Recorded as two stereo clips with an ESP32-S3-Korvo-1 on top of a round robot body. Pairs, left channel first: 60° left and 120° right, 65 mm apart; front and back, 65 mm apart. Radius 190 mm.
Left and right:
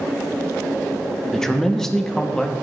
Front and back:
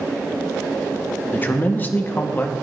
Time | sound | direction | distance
1.3 | a man speaking | 15° right | 1.3 m